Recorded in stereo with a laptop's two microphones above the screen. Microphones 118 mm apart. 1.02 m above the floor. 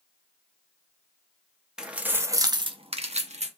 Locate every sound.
1.8 s keys jangling: 5° right (ahead or behind), 0.7 m; by 3.5 s 70° right (ahead or behind), 0.7 m